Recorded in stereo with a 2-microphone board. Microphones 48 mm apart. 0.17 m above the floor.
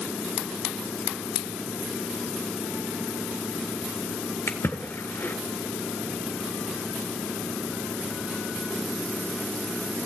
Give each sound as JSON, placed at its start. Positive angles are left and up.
{"t": 4.5, "sound": "a splash", "side_deg": 65, "distance_m": 1.4}